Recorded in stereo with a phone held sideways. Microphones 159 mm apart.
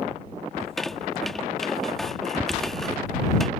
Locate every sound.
0.6 s a squeak: centre (ahead or behind)